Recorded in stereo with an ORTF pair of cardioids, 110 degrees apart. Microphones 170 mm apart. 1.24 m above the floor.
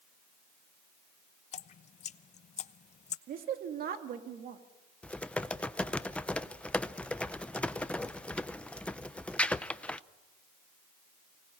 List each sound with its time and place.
1.5 s dripping: 45° left, 0.7 m
3.3 s a woman speaking: 60° right, 2.5 m
5.0 s typing on a keyboard: 5° left, 0.6 m